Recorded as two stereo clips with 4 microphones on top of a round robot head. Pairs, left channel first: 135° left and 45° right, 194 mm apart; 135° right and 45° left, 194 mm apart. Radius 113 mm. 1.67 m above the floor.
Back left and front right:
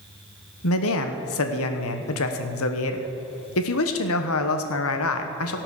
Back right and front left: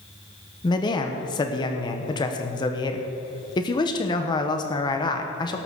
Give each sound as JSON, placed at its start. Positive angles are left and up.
{"t": 0.6, "sound": "a man speaking", "azimuth_deg": 155, "distance_m": 1.1}